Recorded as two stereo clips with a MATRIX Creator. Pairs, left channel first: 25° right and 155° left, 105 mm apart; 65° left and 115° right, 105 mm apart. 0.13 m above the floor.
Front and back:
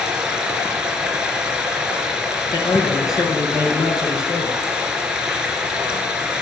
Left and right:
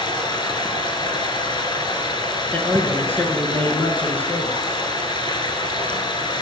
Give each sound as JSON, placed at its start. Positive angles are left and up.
{"t": 0.0, "sound": "running water", "azimuth_deg": 80, "distance_m": 1.6}
{"t": 2.5, "sound": "a man speaking", "azimuth_deg": 5, "distance_m": 1.8}